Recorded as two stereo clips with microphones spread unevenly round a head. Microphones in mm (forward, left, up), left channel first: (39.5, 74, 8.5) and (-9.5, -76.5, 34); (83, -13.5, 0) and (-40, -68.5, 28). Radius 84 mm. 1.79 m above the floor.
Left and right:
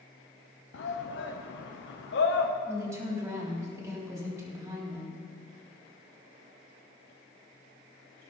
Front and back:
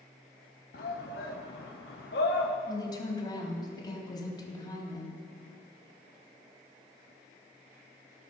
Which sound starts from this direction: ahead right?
A woman speaking, at 2.7 s.